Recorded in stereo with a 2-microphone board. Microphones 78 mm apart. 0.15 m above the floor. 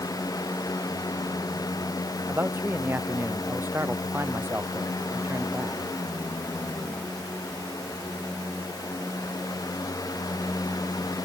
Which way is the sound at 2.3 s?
30° right (ahead or behind).